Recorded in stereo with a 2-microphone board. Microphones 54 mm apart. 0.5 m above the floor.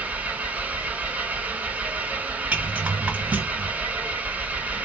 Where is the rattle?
25° right (ahead or behind), 2.5 m.